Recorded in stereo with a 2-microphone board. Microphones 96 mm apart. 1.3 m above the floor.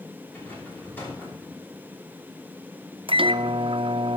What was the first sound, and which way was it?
A rattle, 20° left (ahead or behind).